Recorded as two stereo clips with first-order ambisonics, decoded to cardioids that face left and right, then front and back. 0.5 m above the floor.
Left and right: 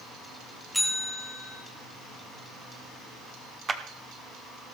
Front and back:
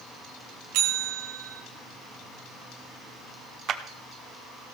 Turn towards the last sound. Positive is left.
turn(degrees=-155)